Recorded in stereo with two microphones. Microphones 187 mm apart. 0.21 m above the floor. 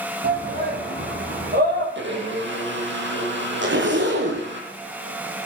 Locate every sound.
0.2 s a shout: 55° right (ahead or behind), 8.5 m
1.9 s a blender: 80° right, 5 m
3.6 s a zipper: 80° right, 4 m